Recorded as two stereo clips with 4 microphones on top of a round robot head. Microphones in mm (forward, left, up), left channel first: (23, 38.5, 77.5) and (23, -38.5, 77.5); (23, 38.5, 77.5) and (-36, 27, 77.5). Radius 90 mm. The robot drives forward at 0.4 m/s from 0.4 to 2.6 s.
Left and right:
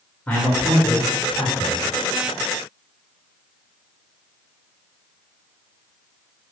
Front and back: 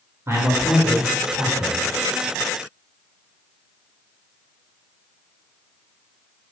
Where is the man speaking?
160° left, 1.0 m; by 1.8 s 170° left, 1.5 m.